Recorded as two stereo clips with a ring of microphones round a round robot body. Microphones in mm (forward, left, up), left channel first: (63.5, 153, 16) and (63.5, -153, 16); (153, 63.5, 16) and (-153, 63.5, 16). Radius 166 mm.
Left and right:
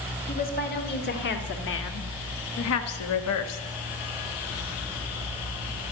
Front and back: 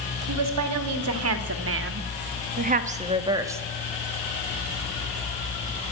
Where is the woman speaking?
155° left, 2 m; by 3.6 s 100° left, 1.3 m.